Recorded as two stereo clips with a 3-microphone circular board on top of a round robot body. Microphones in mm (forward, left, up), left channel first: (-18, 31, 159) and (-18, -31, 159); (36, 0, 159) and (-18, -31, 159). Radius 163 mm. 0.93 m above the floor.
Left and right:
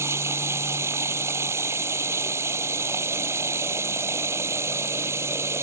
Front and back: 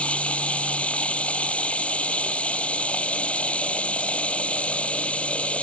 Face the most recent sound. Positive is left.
turn(degrees=-40)